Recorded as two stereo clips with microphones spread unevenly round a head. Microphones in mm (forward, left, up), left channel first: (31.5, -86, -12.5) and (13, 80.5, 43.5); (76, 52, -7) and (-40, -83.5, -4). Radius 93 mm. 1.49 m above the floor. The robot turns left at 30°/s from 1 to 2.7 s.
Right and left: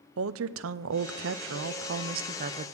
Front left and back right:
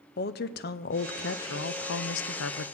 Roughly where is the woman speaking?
Left.